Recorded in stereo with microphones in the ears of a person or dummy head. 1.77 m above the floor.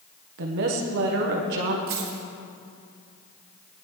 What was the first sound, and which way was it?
A woman speaking, 55° right (ahead or behind).